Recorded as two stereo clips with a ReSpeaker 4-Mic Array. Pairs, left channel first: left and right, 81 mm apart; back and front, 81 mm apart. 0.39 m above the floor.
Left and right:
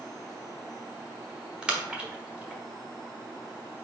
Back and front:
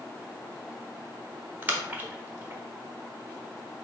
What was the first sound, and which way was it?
A splash, 30° right.